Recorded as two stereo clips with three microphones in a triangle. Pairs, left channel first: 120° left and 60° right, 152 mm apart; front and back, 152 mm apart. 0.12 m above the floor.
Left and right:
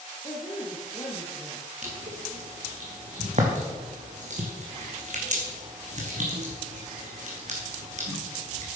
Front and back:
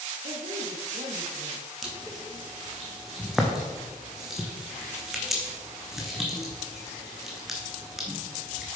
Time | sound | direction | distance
0.2 | a woman speaking | 170° left | 2 m
1.8 | crushing | 90° right | 2 m